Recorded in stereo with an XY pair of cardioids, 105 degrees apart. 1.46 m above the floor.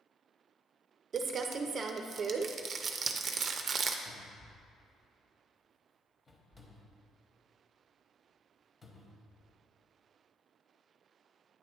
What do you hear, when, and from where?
1.1 s crumpling: 45° right, 0.5 m
4.0 s a cupboard door: 25° left, 1.1 m